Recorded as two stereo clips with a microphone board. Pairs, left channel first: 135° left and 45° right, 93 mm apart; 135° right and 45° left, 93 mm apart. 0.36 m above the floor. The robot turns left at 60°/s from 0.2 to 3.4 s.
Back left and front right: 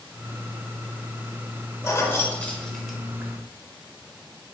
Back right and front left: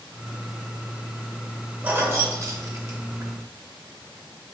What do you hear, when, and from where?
1.8 s keys jangling: 105° left, 0.6 m; by 3.4 s 10° left, 0.6 m